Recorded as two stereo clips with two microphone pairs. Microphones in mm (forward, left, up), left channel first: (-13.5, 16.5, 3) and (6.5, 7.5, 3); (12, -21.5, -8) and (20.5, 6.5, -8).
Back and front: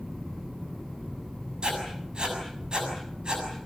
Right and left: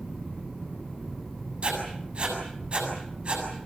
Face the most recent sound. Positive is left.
turn(degrees=20)